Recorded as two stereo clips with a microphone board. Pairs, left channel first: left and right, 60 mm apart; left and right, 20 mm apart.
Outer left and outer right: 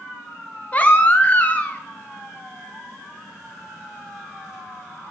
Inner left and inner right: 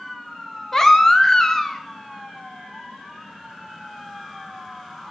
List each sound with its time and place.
0.7 s a baby crying: 25° left (ahead or behind), 0.7 m